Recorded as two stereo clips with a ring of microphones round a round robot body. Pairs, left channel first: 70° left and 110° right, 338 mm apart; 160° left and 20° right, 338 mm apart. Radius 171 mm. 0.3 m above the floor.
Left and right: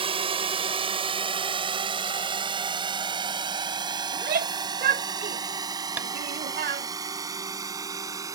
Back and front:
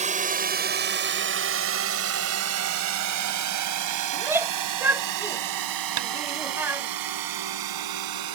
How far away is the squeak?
I don't hear a squeak.